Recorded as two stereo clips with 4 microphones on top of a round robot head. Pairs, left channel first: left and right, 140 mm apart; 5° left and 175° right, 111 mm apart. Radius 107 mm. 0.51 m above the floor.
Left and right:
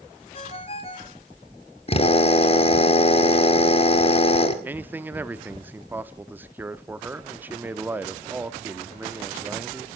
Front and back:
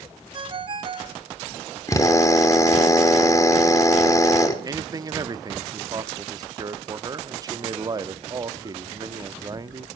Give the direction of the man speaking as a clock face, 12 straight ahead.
5 o'clock.